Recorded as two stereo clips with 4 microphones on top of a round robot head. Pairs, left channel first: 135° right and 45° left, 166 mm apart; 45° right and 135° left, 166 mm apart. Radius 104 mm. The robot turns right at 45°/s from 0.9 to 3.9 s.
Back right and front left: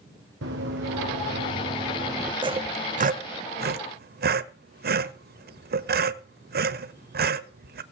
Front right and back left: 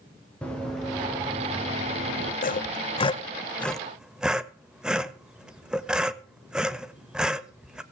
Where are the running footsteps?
40° left, 6 m; by 2.3 s 125° left, 6.5 m.